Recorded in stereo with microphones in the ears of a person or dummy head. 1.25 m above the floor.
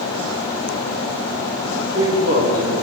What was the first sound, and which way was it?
A man speaking, 35° left (ahead or behind).